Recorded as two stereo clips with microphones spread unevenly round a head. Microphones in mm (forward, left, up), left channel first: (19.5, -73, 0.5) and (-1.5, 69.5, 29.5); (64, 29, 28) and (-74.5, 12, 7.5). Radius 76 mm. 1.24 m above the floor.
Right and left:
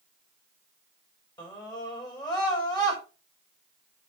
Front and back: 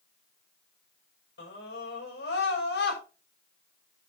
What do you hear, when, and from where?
1.4 s a scream: 15° right, 6 m